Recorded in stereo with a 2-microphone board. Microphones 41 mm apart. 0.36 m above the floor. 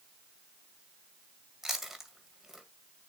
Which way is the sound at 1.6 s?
5° right (ahead or behind).